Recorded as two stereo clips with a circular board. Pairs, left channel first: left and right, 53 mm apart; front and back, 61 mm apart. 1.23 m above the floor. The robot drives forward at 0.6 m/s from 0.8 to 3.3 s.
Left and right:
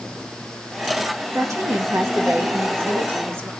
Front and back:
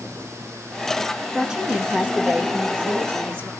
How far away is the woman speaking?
About 2.0 m.